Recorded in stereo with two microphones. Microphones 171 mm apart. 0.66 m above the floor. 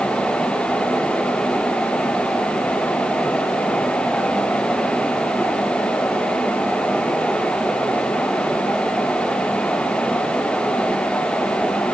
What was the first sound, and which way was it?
Only background noise.